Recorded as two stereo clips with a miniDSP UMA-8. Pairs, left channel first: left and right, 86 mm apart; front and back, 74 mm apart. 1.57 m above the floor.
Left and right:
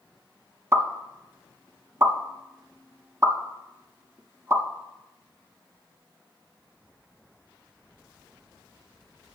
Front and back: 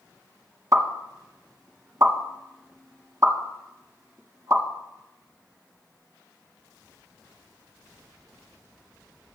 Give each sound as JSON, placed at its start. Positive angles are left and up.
{"t": 0.7, "sound": "a pop", "azimuth_deg": -140, "distance_m": 1.7}